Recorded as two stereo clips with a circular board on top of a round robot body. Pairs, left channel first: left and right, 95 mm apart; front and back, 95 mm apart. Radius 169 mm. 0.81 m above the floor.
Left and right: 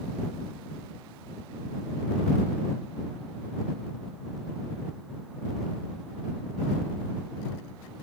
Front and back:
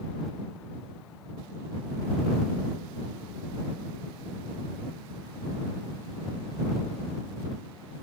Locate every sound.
Only background noise.